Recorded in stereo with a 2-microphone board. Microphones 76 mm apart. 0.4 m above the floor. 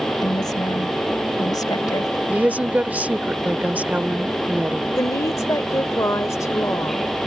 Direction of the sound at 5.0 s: 45° left (ahead or behind).